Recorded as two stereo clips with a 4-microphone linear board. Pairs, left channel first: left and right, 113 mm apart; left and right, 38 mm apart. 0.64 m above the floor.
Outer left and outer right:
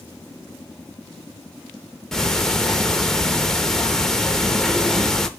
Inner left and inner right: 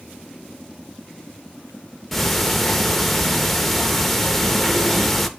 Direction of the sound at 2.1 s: 5° left (ahead or behind).